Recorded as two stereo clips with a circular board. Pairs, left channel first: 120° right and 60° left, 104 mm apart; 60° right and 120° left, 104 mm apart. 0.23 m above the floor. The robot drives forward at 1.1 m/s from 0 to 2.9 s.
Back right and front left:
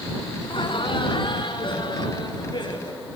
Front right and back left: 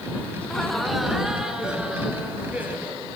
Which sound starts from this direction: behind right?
Laughter, at 0.4 s.